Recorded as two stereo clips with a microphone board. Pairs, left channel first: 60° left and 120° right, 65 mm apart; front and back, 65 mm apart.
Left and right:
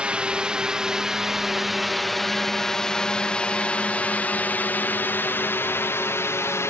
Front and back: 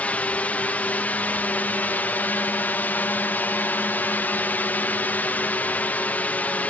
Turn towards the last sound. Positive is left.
turn(degrees=55)